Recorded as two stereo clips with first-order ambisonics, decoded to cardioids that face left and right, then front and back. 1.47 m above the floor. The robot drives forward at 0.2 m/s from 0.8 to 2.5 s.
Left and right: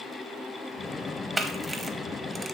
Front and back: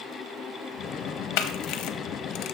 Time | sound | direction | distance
1.4 | a camera shutter | 10° right | 0.7 m